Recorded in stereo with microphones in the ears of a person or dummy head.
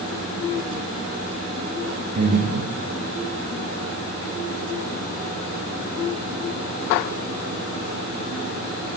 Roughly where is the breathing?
Right.